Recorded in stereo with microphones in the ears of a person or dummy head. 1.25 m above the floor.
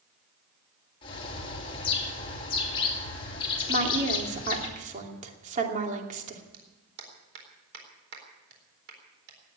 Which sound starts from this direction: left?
A bird, at 1.0 s.